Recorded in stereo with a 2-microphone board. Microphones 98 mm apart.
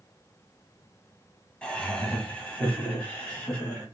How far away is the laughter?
About 1.3 m.